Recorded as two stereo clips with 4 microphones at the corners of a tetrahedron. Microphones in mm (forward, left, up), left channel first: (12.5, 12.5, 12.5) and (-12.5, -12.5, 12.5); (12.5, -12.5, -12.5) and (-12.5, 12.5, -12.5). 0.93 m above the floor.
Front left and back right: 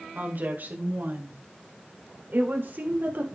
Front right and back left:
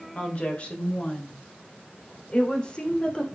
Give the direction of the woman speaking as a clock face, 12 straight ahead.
3 o'clock.